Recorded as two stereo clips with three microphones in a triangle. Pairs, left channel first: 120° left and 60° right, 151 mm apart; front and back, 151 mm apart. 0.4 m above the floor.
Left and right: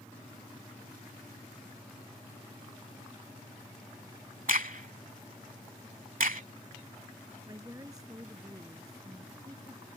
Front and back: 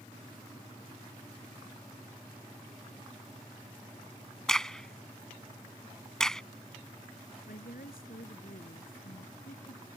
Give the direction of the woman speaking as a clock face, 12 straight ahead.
12 o'clock.